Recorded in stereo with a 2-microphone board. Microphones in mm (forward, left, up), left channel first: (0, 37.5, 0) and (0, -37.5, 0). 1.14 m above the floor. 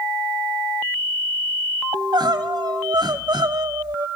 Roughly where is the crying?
Right.